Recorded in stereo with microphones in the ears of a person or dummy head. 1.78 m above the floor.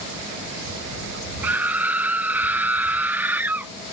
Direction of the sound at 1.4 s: 10° right (ahead or behind).